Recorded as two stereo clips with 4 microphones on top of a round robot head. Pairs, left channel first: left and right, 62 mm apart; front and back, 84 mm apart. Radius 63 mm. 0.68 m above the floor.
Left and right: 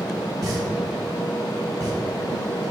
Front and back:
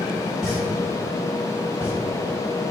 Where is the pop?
100° right, 4.5 m.